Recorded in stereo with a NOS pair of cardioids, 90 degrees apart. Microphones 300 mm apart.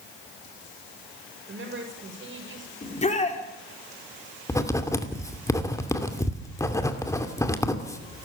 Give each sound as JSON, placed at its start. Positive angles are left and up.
{"t": 1.5, "sound": "a woman speaking", "azimuth_deg": -40, "distance_m": 8.0}
{"t": 2.8, "sound": "a shout", "azimuth_deg": 20, "distance_m": 4.0}
{"t": 4.5, "sound": "writing", "azimuth_deg": 10, "distance_m": 2.5}